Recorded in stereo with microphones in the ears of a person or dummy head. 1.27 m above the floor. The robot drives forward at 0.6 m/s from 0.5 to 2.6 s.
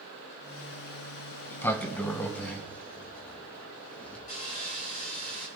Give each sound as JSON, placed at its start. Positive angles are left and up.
{"t": 1.4, "sound": "a sliding door", "side_deg": 10, "distance_m": 0.6}
{"t": 4.3, "sound": "sawing", "side_deg": 40, "distance_m": 3.5}